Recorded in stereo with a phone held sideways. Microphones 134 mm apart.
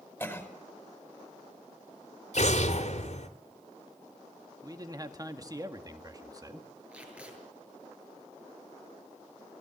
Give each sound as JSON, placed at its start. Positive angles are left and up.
{"t": 0.2, "sound": "a cough", "side_deg": 15, "distance_m": 5.0}
{"t": 2.3, "sound": "an explosion", "side_deg": 55, "distance_m": 2.0}
{"t": 4.6, "sound": "a man speaking", "side_deg": -25, "distance_m": 2.0}
{"t": 6.9, "sound": "tape being pulled", "side_deg": -10, "distance_m": 7.0}